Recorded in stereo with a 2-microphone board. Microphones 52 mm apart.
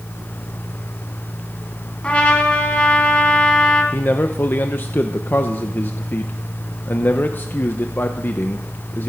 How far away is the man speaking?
About 0.8 m.